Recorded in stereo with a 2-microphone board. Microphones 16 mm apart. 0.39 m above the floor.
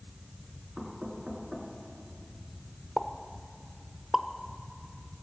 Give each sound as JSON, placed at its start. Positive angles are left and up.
{"t": 0.8, "sound": "knocking", "side_deg": -35, "distance_m": 3.0}
{"t": 3.0, "sound": "a pop", "side_deg": -5, "distance_m": 0.7}